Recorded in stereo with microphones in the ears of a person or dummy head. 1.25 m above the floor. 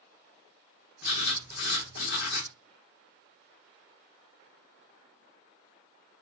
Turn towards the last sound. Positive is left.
turn(degrees=60)  # may be behind; listen again after turning